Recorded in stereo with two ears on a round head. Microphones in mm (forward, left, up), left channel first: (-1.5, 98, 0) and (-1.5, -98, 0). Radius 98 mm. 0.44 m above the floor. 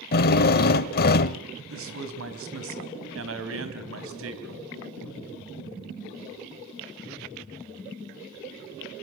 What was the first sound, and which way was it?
A drill, 45° left (ahead or behind).